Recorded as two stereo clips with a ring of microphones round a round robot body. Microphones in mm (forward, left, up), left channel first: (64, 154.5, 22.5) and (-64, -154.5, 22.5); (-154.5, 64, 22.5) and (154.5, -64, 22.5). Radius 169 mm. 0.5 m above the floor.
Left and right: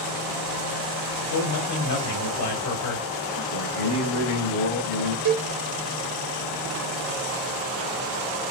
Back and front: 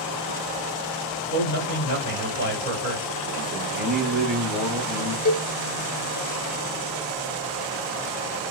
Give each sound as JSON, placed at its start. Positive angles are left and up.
{"t": 1.3, "sound": "a man speaking", "azimuth_deg": 100, "distance_m": 2.5}
{"t": 3.5, "sound": "a man speaking", "azimuth_deg": 65, "distance_m": 1.8}
{"t": 5.2, "sound": "a cowbell", "azimuth_deg": -150, "distance_m": 1.2}